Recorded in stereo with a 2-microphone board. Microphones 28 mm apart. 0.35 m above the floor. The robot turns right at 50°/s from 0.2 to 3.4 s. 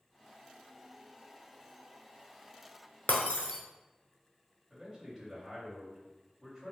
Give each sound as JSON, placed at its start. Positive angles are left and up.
{"t": 3.1, "sound": "breaking glass", "side_deg": 70, "distance_m": 0.8}
{"t": 4.7, "sound": "a man speaking", "side_deg": -15, "distance_m": 1.9}